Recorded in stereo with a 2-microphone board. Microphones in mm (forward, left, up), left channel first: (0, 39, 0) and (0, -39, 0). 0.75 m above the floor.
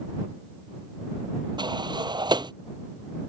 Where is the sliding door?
75° right (ahead or behind).